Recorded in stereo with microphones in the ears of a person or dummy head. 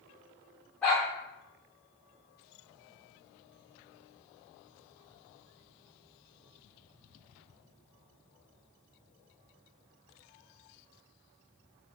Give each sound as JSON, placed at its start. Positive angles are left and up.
{"t": 0.8, "sound": "a dog barking", "side_deg": 5, "distance_m": 0.9}